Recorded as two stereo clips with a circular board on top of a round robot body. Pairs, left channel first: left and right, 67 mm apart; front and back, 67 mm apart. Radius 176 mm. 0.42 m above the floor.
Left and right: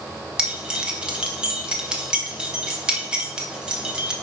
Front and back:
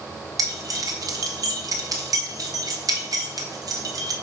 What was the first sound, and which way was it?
Keys jangling, 165° right.